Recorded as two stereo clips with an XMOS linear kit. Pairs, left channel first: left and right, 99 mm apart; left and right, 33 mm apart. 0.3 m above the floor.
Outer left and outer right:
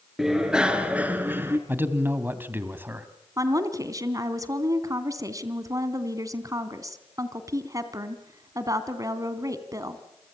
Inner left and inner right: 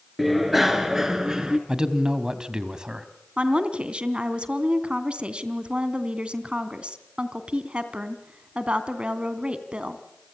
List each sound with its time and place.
0.2 s a bicycle bell: 5° right (ahead or behind), 3.5 m; by 1.6 s 25° right (ahead or behind), 2.5 m
1.7 s a man speaking: 25° right (ahead or behind), 2 m
3.4 s a woman speaking: 35° right (ahead or behind), 2.5 m